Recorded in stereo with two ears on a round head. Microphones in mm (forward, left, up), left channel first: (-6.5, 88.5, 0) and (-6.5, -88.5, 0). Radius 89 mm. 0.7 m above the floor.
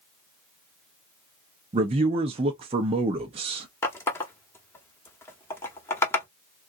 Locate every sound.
1.7 s a man speaking: 30° right (ahead or behind), 0.5 m
3.8 s a running tap: 15° left (ahead or behind), 0.9 m